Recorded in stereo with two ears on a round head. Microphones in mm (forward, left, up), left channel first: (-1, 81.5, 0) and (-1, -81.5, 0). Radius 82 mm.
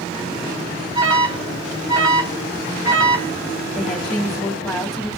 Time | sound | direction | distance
0.9 | an alarm | 25° right (ahead or behind) | 2 m
3.8 | a woman speaking | centre (ahead or behind) | 3 m